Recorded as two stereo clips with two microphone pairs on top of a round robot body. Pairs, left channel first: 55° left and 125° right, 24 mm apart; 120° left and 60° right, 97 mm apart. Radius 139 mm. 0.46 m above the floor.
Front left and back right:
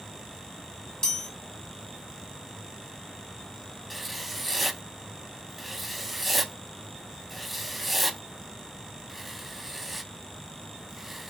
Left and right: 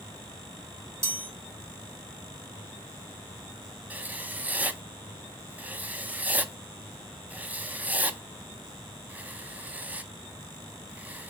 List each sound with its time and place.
1.0 s a chime: straight ahead, 2 m
3.9 s writing: 50° right, 0.6 m